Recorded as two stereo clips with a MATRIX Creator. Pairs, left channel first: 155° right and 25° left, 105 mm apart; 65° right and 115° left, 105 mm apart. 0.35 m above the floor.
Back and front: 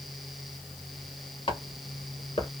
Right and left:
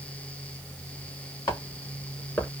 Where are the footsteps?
125° right, 4 m; by 2.5 s 140° right, 4 m.